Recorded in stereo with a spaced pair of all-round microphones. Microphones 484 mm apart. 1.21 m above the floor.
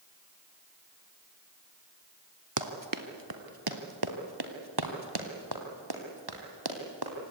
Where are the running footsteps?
40° right (ahead or behind), 1.4 m; by 7.3 s 50° right (ahead or behind), 3.5 m.